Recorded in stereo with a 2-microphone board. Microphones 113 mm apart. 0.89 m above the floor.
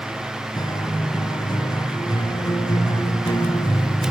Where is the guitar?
40° left (ahead or behind), 7 m.